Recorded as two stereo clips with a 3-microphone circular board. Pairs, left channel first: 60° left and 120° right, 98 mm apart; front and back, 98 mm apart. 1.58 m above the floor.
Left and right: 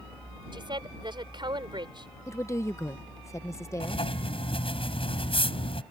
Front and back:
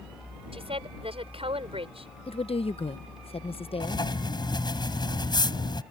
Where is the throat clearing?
No throat clearing in this recording.